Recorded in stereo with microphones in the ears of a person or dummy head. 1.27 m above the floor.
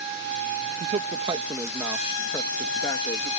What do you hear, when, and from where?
0.8 s a man speaking: 45° right (ahead or behind); by 3.3 s 20° left (ahead or behind)